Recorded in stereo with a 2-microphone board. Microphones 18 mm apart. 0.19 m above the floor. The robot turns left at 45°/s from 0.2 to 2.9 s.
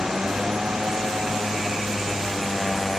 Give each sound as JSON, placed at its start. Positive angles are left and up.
{"t": 0.0, "sound": "a motorcycle", "side_deg": -60}